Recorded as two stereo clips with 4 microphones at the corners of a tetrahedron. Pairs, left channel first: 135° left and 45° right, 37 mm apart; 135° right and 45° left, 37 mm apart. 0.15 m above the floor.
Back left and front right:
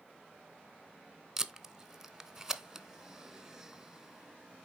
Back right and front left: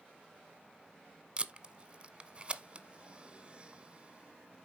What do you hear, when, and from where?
1.4 s tape being pulled: 25° left, 0.7 m